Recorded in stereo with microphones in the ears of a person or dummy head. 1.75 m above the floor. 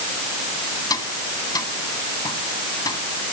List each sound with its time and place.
0.9 s tapping: 15° left (ahead or behind)